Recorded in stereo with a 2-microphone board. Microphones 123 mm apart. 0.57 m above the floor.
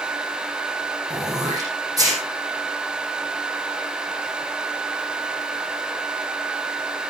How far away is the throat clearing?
About 8 m.